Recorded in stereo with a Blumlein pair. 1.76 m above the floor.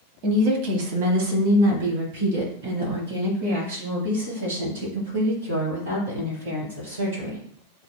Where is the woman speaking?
40° right, 0.9 m; by 7.4 s 65° right, 5.5 m.